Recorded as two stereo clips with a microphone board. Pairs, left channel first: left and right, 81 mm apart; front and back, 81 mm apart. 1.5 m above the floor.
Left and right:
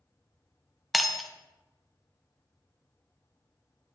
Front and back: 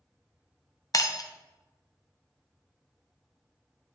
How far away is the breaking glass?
About 0.8 m.